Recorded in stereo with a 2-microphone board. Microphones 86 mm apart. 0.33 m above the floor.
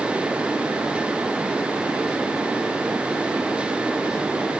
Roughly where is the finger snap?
No finger snap in this recording.